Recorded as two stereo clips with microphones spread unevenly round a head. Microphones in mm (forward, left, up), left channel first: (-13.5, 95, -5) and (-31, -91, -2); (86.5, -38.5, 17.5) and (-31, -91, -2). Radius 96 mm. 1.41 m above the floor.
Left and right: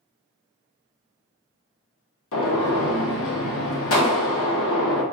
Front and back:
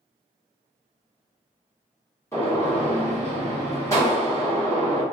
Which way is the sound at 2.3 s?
100° left.